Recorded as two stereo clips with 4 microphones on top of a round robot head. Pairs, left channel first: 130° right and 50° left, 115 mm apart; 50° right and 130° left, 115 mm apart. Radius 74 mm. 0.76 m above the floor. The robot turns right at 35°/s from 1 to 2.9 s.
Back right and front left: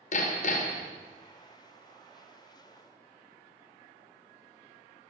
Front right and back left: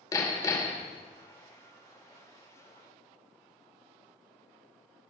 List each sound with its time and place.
0.1 s hammering: 115° right, 1.9 m